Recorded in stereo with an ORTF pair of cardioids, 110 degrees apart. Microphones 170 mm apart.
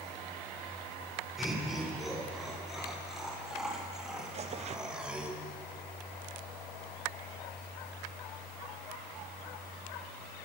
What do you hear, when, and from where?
1.4 s laughter: straight ahead, 6 m; by 5.3 s 5° right, 2 m
4.3 s tearing paper: 40° right, 0.7 m